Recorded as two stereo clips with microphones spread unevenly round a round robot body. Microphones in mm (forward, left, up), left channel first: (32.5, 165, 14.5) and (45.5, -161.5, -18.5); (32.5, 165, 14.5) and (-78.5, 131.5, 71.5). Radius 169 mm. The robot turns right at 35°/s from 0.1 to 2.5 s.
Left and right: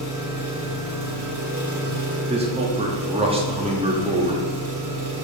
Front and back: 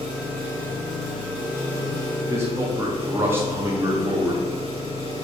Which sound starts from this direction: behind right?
An engine running, at 0.0 s.